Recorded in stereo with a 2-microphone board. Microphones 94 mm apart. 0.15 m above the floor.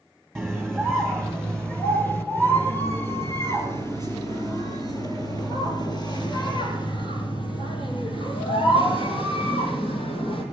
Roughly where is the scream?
Centre.